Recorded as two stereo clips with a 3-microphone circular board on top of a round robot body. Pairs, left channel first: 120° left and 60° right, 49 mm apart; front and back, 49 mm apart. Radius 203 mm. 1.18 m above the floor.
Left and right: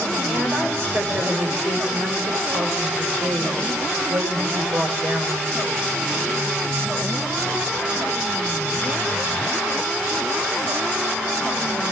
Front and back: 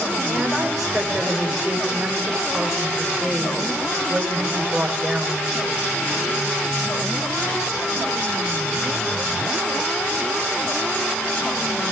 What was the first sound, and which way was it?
A woman speaking, 95° right.